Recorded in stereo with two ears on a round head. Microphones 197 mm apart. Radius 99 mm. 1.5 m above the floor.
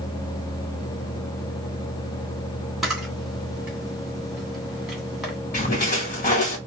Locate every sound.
2.8 s a camera shutter: centre (ahead or behind), 2 m
5.5 s a splash: 35° left (ahead or behind), 1.4 m